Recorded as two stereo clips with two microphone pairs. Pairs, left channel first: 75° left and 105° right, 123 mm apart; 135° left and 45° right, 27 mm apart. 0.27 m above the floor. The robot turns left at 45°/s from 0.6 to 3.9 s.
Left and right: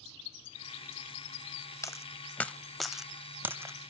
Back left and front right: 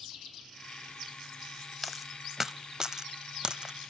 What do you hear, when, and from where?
1.8 s a dropped coin: 35° left, 0.5 m; by 3.9 s 55° right, 0.5 m